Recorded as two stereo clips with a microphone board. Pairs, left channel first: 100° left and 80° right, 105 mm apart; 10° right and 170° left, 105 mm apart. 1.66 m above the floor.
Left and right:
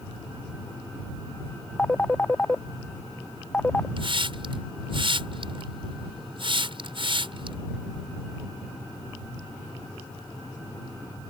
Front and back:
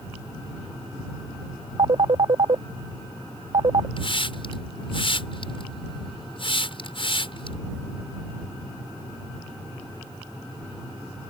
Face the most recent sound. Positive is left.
turn(degrees=-45)